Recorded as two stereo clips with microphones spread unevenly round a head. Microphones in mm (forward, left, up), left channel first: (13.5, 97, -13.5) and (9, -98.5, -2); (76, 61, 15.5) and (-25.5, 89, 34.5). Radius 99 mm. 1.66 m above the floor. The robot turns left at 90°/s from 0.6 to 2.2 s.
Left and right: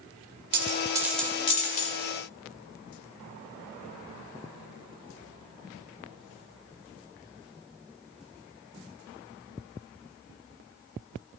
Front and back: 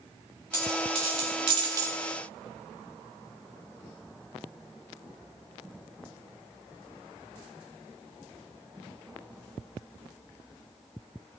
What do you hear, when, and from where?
0.5 s a dropped coin: 130° right, 2 m; by 2.0 s 110° left, 2 m